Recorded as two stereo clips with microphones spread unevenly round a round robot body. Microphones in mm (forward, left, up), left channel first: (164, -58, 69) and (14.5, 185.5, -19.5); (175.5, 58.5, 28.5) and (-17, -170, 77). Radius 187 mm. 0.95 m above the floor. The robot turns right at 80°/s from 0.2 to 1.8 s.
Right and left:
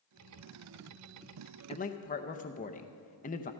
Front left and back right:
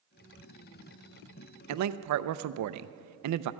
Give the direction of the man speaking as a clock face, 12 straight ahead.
5 o'clock.